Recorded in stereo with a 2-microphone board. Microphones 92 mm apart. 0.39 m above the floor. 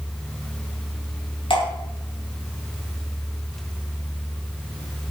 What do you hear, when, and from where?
1.5 s dripping: 70° left (ahead or behind), 5 m